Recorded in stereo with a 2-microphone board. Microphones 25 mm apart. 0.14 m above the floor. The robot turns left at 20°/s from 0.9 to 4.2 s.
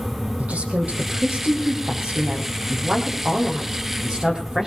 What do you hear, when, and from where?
0.4 s a woman speaking: 80° right, 4.5 m; by 4.7 s 145° right, 4.5 m